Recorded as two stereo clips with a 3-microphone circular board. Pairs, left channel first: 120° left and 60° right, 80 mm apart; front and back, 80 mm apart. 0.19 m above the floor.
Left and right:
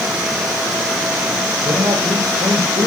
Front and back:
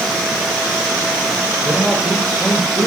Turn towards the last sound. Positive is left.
turn(degrees=-80)